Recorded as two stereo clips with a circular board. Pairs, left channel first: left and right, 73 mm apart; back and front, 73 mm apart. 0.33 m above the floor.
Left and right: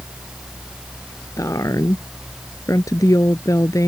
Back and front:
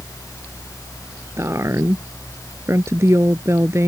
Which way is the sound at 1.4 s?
50° left.